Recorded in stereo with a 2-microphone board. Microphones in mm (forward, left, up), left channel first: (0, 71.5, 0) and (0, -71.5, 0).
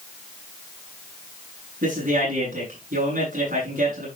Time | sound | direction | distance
1.8 | a man speaking | 75° right (ahead or behind) | 9.5 m